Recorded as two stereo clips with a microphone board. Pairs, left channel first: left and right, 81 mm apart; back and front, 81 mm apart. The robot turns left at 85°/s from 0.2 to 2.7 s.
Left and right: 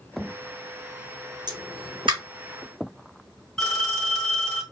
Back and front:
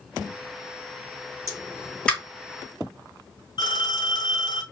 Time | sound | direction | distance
1.5 | a pop | 50° right | 2.5 m
3.6 | a phone ringing | 175° left | 2.5 m